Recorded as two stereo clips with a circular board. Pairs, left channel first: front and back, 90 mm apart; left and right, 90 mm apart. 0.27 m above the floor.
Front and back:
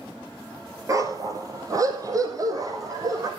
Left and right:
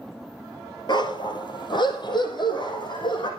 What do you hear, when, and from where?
0.9 s a dog barking: 125° left, 2 m